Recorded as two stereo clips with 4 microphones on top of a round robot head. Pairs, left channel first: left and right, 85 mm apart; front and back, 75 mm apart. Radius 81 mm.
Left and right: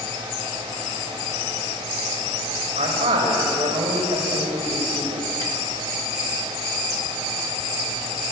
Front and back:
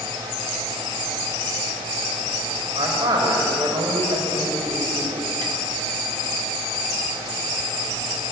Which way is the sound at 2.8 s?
125° right.